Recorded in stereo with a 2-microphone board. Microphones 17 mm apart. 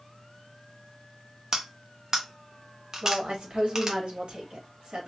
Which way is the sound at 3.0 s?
85° right.